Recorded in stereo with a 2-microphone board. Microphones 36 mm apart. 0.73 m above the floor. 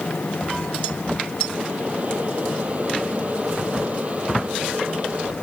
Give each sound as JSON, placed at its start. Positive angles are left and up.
{"t": 1.5, "sound": "boiling", "side_deg": -40}